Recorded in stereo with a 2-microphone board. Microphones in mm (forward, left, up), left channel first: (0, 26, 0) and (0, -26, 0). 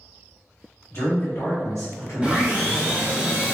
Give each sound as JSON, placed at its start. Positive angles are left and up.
{"t": 0.9, "sound": "a man speaking", "side_deg": 55, "distance_m": 1.5}
{"t": 2.2, "sound": "sawing", "side_deg": -15, "distance_m": 1.1}